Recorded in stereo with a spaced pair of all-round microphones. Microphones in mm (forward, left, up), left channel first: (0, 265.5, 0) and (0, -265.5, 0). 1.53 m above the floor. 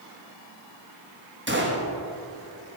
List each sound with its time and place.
1.5 s a gunshot: 20° right (ahead or behind), 1.3 m